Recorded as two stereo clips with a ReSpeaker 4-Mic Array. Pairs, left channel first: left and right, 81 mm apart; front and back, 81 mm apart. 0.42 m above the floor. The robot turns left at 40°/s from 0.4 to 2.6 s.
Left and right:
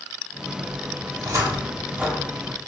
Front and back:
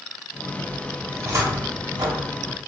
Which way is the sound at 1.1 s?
120° right.